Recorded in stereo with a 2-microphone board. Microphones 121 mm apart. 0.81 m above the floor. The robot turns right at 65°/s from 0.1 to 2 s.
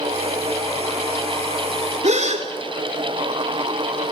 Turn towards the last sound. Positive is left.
turn(degrees=-70)  # may be behind; listen again after turning